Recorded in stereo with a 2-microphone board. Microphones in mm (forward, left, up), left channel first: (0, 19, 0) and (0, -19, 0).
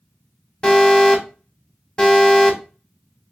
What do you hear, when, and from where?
0.6 s an alarm: 20° left (ahead or behind), 0.8 m